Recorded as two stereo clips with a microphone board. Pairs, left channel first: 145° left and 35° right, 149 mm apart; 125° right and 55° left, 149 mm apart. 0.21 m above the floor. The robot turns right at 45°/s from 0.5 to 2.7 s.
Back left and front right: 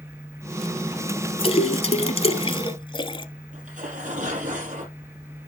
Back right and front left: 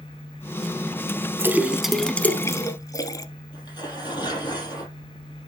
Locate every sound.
1.4 s a splash: 120° left, 0.8 m; by 3.2 s straight behind, 0.8 m
3.5 s tearing paper: 65° right, 4.5 m